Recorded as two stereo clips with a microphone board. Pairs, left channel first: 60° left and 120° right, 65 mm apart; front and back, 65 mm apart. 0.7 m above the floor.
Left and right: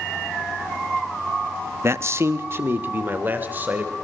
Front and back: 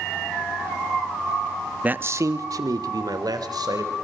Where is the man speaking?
125° right, 0.9 m; by 3.9 s 175° left, 3.5 m.